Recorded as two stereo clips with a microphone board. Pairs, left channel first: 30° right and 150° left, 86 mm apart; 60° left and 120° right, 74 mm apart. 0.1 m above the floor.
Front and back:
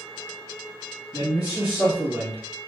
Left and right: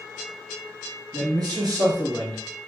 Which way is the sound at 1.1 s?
125° right.